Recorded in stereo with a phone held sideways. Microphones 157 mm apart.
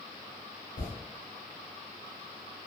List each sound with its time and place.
0.8 s a toilet flushing: 70° left (ahead or behind), 1.7 m